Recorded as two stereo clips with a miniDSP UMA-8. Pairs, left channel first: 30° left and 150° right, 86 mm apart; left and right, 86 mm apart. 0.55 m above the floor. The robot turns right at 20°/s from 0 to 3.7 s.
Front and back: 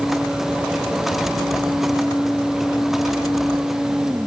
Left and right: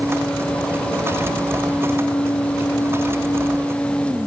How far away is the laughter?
I don't hear laughter.